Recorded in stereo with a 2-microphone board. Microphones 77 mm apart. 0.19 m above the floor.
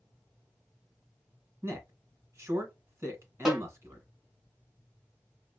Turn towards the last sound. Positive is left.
turn(degrees=-5)  # may be behind; listen again after turning